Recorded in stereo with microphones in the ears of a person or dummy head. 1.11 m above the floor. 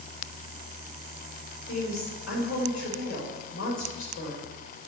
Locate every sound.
1.7 s a woman speaking: 65° left (ahead or behind), 5 m